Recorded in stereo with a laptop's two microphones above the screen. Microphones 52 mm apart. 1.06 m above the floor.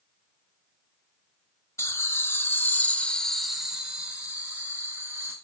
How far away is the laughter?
About 1.4 m.